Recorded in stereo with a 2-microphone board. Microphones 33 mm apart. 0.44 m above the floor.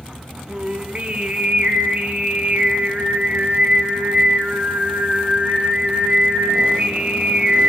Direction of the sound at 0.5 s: 40° right (ahead or behind).